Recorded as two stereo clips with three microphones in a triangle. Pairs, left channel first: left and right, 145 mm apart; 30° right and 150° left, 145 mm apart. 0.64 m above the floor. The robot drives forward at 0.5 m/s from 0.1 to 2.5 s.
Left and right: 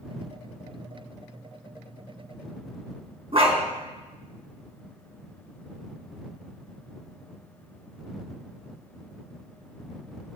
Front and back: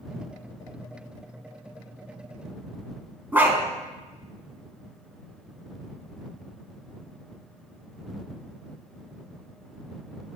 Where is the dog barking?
135° right, 1.8 m.